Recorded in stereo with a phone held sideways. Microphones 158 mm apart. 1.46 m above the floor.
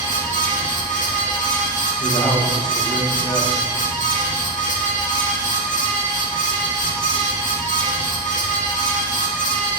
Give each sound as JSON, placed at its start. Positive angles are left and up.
{"t": 0.0, "sound": "a fan", "side_deg": 55, "distance_m": 2.0}
{"t": 2.0, "sound": "a man speaking", "side_deg": 30, "distance_m": 1.6}